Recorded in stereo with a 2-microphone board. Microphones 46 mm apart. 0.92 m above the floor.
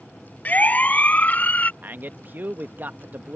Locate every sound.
0.5 s a siren: 40° left (ahead or behind)
1.8 s a man speaking: 45° right (ahead or behind)